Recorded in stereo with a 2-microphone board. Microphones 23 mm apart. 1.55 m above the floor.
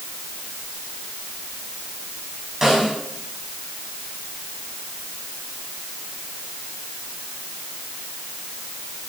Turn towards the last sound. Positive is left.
turn(degrees=-20)  # may be behind; listen again after turning